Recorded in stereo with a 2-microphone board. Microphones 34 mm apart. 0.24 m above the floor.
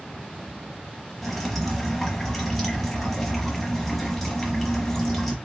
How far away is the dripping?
About 1.1 m.